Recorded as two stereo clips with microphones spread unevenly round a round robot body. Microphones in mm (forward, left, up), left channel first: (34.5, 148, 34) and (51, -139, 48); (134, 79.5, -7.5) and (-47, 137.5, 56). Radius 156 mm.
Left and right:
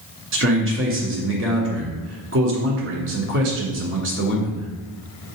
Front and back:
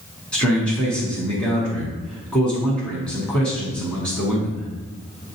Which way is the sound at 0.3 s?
75° right.